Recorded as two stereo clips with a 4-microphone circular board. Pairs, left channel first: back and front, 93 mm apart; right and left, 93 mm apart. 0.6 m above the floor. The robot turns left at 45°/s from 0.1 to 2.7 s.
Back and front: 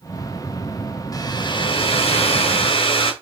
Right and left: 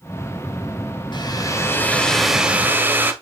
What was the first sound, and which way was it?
A hair dryer, 130° right.